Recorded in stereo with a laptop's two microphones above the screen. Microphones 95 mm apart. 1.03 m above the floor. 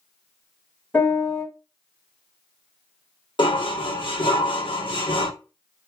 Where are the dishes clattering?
60° left (ahead or behind), 1.5 m.